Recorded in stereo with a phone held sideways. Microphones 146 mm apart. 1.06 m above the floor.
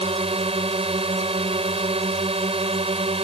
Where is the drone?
40° right (ahead or behind).